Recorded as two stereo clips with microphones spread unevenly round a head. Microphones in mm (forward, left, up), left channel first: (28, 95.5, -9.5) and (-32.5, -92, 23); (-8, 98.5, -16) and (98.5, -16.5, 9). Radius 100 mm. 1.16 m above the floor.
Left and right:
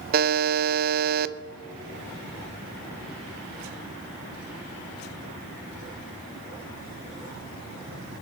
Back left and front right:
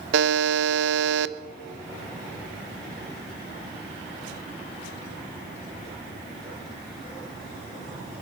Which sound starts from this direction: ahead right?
A buzzer, at 0.1 s.